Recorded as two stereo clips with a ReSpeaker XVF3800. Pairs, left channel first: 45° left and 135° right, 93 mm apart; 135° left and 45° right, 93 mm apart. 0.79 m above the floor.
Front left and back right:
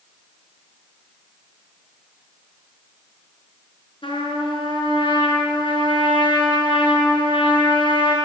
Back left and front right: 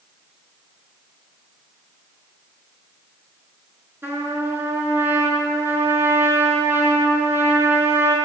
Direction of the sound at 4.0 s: 20° left.